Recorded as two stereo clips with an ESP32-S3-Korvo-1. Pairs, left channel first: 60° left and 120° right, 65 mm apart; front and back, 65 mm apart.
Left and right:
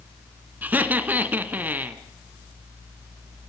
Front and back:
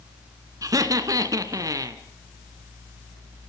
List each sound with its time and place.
0.6 s laughter: straight behind, 2 m